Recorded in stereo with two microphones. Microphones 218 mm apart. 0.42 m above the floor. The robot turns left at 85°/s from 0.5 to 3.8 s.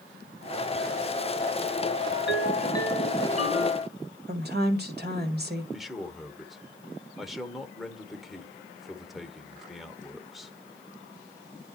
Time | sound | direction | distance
2.1 | a ringtone | 75° left | 1.3 m
4.3 | a woman speaking | 50° right (ahead or behind) | 1.6 m
5.7 | a man speaking | centre (ahead or behind) | 1.0 m